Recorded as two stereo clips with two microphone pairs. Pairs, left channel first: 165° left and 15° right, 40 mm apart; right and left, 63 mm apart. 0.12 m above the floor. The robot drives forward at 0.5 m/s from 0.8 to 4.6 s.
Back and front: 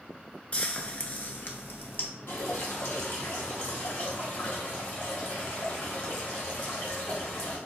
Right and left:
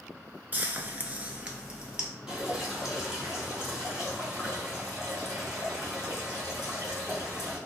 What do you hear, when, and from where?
0.5 s frying: 125° left, 0.5 m; by 2.1 s 160° left, 1.0 m
2.3 s dripping: 165° left, 1.2 m; by 7.6 s 170° left, 2.5 m